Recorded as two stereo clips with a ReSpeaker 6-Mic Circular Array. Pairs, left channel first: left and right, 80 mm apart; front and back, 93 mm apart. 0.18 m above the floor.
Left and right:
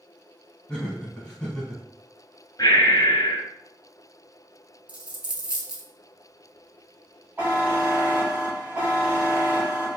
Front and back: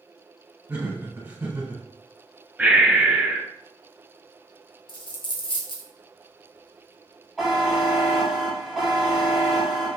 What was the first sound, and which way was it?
Laughter, 155° left.